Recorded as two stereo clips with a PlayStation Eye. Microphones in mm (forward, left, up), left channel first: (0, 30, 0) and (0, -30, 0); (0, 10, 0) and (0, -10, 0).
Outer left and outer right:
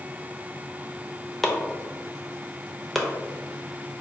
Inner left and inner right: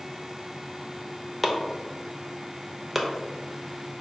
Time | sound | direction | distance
1.4 | chopping | centre (ahead or behind) | 0.5 m